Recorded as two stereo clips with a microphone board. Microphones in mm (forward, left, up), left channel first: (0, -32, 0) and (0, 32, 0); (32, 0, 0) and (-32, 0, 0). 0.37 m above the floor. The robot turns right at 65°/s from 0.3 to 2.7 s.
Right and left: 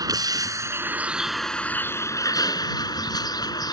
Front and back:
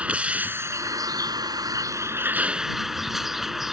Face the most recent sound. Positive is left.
turn(degrees=-95)